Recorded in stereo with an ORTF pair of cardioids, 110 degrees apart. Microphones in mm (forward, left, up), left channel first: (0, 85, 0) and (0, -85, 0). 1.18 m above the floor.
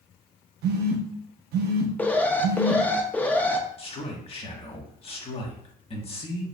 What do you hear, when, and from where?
0.6 s a phone buzzing: 65° right, 0.8 m
2.0 s an alarm: 10° left, 0.6 m
3.8 s a man speaking: 35° left, 1.3 m